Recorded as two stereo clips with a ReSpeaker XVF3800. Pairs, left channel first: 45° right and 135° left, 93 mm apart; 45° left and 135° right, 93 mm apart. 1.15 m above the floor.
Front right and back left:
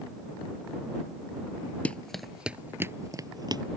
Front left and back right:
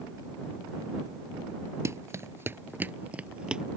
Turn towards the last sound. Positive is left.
turn(degrees=145)